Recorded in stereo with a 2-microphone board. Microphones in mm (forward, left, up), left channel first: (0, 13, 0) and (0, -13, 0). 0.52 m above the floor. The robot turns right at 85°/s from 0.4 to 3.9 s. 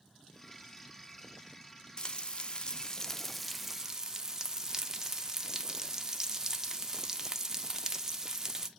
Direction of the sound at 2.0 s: 55° left.